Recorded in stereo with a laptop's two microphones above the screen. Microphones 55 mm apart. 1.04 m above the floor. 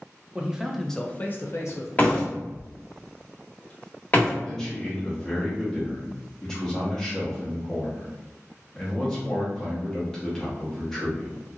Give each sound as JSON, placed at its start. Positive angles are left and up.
{"t": 0.3, "sound": "a man speaking", "side_deg": -20, "distance_m": 0.8}
{"t": 2.0, "sound": "a door slam", "side_deg": 30, "distance_m": 1.3}
{"t": 4.4, "sound": "a man speaking", "side_deg": 10, "distance_m": 1.0}